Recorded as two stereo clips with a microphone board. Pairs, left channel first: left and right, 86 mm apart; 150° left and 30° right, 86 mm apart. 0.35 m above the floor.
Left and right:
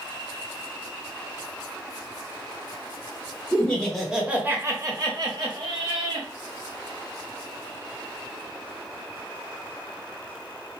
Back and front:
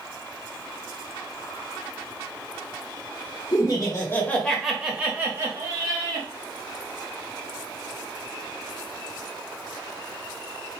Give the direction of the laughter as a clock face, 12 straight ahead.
7 o'clock.